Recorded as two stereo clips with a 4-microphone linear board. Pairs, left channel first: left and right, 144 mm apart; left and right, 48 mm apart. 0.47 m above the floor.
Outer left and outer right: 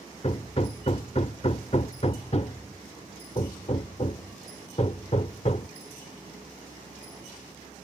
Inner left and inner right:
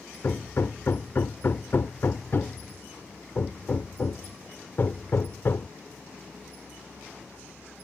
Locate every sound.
0.2 s hammering: 45° left (ahead or behind)